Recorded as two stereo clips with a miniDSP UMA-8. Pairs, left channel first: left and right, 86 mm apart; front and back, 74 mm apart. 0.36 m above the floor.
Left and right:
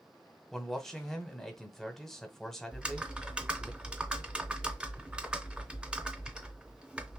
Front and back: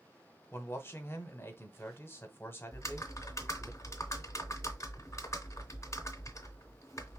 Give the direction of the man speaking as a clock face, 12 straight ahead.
12 o'clock.